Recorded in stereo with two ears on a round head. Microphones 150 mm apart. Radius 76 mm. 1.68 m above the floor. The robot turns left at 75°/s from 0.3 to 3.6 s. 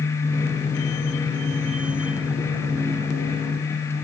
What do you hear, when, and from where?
Only background noise.